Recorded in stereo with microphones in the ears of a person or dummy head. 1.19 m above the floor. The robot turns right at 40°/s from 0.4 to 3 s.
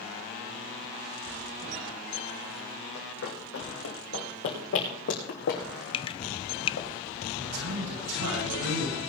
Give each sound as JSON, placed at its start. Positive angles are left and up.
{"t": 3.0, "sound": "running footsteps", "side_deg": 65, "distance_m": 3.5}
{"t": 5.9, "sound": "dripping", "side_deg": 25, "distance_m": 0.5}
{"t": 7.3, "sound": "a man speaking", "side_deg": -90, "distance_m": 7.5}